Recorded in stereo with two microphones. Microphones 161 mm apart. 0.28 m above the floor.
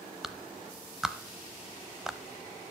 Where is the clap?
5° right (ahead or behind), 0.8 m.